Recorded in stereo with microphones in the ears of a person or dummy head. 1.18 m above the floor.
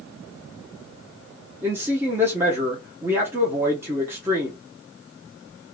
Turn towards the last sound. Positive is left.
turn(degrees=-15)  # may be behind; listen again after turning